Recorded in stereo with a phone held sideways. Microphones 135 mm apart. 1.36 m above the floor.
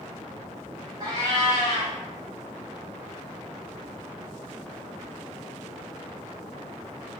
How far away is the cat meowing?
About 3 m.